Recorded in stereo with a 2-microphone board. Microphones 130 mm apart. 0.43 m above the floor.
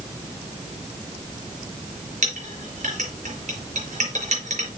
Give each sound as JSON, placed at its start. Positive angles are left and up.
{"t": 2.2, "sound": "a clink", "side_deg": -70, "distance_m": 4.5}